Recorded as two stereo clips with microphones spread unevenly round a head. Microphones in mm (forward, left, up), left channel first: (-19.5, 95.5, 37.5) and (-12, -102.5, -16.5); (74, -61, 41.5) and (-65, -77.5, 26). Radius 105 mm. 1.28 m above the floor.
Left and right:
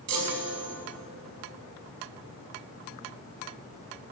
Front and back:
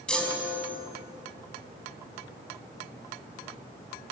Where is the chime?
75° right, 5.5 m.